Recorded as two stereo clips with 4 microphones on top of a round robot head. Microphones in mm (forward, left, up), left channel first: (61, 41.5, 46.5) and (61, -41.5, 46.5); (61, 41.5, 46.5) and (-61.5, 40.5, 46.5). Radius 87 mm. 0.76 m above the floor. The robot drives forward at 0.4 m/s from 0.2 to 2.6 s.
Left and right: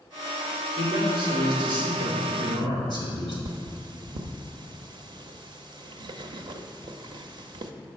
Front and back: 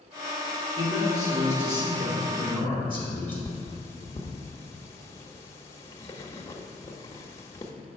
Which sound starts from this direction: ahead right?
Cutlery clinking, at 3.5 s.